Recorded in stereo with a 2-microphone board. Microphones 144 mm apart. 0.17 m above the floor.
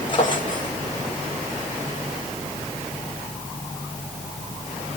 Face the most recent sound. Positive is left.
turn(degrees=35)  # may be behind; listen again after turning